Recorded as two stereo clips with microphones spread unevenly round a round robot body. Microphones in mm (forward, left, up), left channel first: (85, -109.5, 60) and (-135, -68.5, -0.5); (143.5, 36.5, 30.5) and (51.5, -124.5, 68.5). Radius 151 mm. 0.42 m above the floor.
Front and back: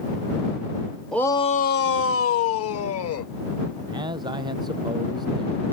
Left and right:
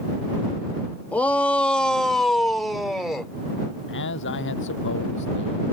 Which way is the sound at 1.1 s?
105° left.